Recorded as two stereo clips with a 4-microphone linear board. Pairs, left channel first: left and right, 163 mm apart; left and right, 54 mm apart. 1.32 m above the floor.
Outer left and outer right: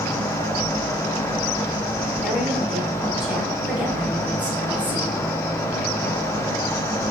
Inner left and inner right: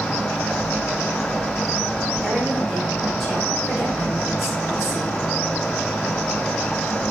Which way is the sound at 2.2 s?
5° right (ahead or behind).